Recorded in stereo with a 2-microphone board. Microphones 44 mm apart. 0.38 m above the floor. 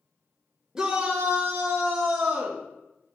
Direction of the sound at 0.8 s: 15° right (ahead or behind).